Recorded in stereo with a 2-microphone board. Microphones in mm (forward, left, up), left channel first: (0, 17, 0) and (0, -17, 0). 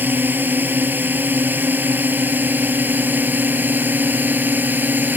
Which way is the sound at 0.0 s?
70° right (ahead or behind).